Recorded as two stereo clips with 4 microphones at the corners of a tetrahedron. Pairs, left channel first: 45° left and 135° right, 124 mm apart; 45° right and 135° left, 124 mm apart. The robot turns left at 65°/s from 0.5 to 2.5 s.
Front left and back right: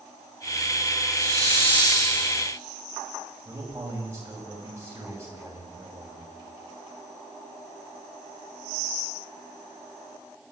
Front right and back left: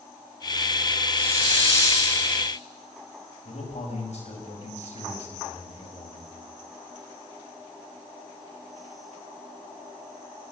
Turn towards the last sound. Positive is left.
turn(degrees=-65)